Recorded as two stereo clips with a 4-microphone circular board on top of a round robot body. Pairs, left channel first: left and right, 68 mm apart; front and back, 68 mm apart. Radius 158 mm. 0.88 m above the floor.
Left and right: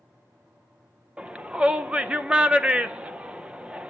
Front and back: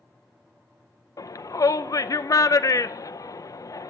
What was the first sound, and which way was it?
A shout, 20° right.